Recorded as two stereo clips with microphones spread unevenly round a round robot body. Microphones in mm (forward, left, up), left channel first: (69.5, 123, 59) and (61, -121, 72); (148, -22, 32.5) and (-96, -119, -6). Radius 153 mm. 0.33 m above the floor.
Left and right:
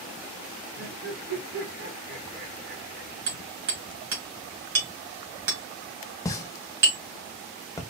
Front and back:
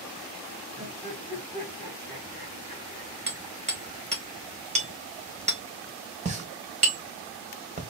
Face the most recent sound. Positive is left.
turn(degrees=155)